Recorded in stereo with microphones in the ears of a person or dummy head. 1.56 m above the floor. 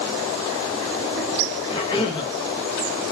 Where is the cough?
30° left (ahead or behind), 0.7 m.